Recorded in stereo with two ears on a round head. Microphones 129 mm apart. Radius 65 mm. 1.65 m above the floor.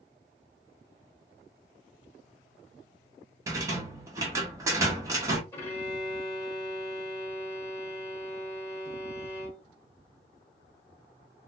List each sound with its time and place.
3.5 s a rattle: 20° right (ahead or behind), 1.0 m
5.5 s a violin: 20° left (ahead or behind), 1.4 m